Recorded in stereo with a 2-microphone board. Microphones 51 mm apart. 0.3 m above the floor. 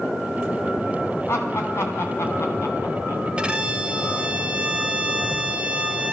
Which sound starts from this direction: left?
Laughter, at 1.3 s.